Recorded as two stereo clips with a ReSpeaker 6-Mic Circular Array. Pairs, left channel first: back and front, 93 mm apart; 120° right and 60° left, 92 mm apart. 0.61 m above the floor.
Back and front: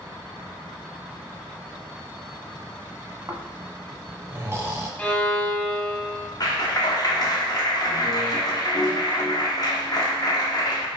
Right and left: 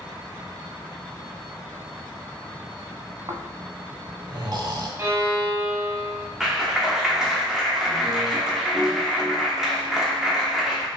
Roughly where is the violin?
Left.